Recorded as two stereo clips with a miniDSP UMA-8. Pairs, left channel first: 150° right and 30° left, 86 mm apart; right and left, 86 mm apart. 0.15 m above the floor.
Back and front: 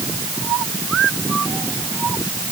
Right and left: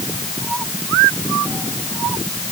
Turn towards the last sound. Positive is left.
No sound to turn to.